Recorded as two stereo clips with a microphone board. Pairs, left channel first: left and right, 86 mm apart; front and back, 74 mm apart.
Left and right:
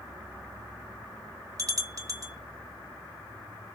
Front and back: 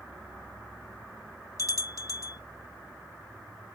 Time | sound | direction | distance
1.6 | a bell | 45° right | 0.6 m